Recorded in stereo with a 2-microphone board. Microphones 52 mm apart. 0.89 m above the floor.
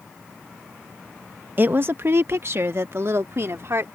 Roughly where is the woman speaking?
Right.